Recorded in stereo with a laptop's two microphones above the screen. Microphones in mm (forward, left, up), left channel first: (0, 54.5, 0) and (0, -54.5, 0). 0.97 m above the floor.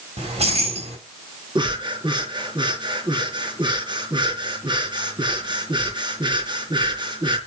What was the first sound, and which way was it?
Keys jangling, 75° right (ahead or behind).